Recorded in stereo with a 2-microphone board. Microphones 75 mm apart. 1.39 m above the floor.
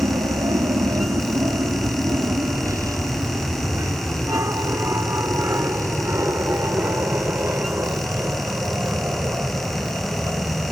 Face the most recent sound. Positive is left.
turn(degrees=-30)  # may be behind; listen again after turning